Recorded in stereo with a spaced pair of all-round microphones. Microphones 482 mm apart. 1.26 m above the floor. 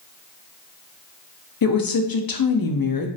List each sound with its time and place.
1.6 s a woman speaking: 50° left (ahead or behind), 0.5 m